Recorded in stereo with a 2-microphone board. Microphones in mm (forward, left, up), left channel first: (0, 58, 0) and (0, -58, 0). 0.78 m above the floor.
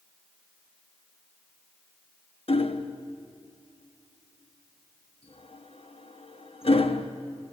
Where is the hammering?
55° left (ahead or behind), 1.1 m.